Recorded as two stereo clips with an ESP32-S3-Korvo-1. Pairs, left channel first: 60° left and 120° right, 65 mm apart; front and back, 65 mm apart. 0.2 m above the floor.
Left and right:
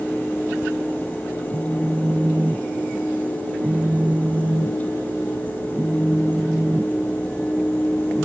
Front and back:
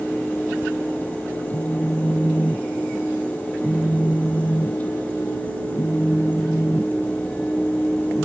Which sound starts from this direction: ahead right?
A phone buzzing, at 1.5 s.